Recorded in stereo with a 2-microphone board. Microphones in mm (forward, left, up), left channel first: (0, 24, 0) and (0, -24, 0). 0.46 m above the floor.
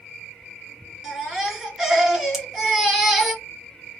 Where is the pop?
10° right (ahead or behind), 2 m.